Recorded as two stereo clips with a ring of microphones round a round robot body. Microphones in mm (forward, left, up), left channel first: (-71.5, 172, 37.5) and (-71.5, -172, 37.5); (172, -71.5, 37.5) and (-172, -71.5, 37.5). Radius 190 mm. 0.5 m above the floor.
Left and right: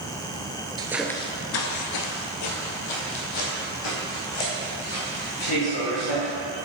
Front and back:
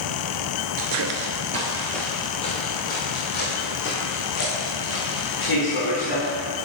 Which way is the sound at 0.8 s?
165° right.